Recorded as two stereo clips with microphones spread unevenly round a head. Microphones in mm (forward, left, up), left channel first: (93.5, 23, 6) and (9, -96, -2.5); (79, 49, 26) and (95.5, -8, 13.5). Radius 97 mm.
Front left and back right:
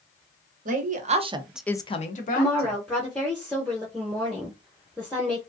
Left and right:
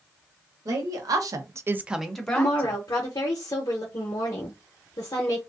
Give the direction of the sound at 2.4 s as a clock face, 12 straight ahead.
7 o'clock.